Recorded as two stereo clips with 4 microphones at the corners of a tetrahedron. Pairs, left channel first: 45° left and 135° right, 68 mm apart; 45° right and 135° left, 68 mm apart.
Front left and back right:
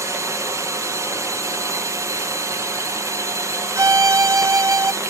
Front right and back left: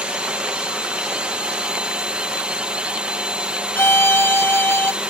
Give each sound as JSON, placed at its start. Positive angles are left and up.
{"t": 0.0, "sound": "a drone", "azimuth_deg": -155}
{"t": 3.8, "sound": "a violin", "azimuth_deg": -100}